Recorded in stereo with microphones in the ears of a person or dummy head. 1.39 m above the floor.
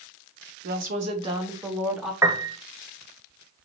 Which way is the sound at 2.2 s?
15° right (ahead or behind).